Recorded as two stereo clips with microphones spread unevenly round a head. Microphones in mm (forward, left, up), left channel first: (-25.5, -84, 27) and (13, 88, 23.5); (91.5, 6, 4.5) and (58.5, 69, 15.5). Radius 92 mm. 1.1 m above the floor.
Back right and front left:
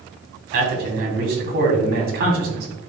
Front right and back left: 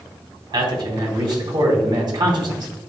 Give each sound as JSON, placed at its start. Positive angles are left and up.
{"t": 0.5, "sound": "a man speaking", "azimuth_deg": 105, "distance_m": 3.0}